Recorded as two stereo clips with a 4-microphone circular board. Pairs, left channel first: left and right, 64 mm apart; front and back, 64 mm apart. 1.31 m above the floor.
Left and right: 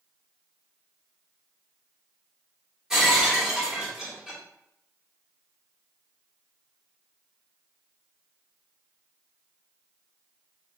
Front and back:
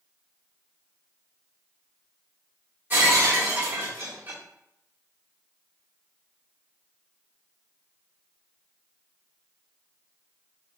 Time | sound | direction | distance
2.9 | breaking glass | 165° right | 1.0 m